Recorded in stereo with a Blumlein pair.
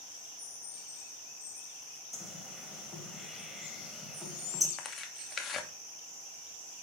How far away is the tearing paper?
About 0.9 m.